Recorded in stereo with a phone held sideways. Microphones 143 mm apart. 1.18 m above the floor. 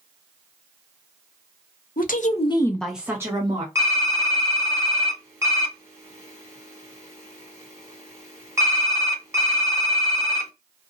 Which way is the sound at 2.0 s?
75° left (ahead or behind).